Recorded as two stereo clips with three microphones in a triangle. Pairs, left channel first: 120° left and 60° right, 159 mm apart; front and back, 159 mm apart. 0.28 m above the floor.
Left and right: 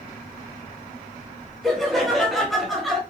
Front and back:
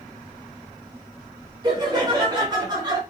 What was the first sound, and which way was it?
Laughter, 150° right.